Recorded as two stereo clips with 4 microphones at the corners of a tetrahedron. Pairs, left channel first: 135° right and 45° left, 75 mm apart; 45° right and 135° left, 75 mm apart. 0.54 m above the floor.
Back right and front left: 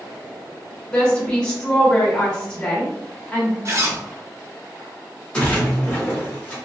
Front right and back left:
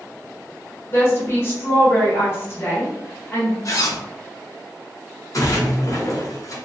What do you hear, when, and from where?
0.9 s a woman speaking: 65° right, 1.0 m
3.6 s a zipper: 5° right, 0.6 m
5.3 s a splash: 60° right, 1.3 m